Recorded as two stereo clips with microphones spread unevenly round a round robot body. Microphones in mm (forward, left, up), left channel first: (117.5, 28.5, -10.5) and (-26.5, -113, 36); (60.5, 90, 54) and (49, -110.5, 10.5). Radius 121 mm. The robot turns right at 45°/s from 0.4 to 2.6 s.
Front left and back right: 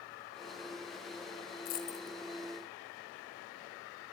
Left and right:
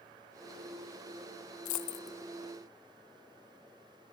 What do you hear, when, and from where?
1.6 s a dropped coin: 100° left, 1.4 m; by 2.2 s 125° left, 1.4 m